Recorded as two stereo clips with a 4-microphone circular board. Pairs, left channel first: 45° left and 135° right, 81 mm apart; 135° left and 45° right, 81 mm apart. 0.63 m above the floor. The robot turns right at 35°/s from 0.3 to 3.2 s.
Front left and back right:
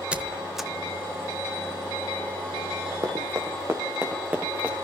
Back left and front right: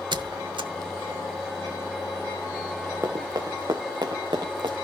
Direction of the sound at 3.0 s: 100° right.